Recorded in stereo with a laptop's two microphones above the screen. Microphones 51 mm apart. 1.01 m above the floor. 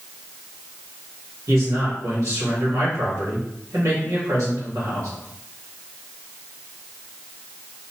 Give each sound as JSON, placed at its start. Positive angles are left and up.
{"t": 1.5, "sound": "a man speaking", "side_deg": -70, "distance_m": 2.0}